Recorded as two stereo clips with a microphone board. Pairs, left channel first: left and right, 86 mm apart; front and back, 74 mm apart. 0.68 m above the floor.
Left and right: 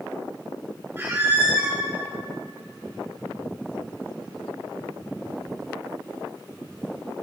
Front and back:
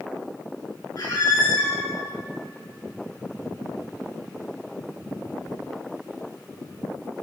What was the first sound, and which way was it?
A squeak, 25° right.